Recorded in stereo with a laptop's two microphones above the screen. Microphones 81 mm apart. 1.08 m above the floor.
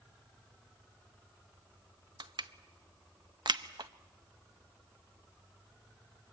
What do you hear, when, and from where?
2.2 s crushing: 70° right (ahead or behind), 0.9 m